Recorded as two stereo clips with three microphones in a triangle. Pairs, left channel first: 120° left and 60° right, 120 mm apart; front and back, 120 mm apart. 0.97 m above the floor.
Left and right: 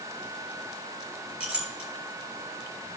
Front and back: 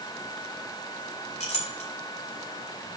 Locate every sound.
1.4 s a clink: 25° left, 3 m